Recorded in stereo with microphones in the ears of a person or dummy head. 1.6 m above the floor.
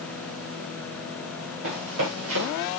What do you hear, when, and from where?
1.6 s running footsteps: 75° right (ahead or behind), 7 m; by 2.7 s 80° right, 8.5 m